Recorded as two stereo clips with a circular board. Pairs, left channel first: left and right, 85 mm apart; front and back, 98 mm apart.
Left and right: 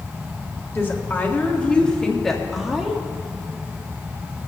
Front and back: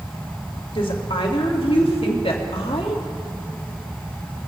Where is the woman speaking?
25° left, 2 m; by 3.0 s 10° right, 2.0 m.